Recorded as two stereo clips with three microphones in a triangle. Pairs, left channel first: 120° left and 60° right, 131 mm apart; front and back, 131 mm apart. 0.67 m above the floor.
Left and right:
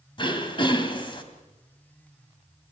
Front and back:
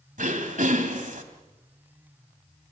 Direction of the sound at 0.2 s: 170° left.